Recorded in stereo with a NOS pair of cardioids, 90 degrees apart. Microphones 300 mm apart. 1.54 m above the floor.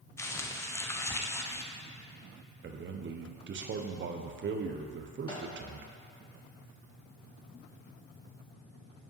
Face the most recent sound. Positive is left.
turn(degrees=15)